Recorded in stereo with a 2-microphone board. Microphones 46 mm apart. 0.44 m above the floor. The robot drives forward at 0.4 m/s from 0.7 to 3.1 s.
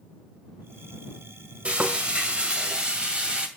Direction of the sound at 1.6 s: 30° right (ahead or behind).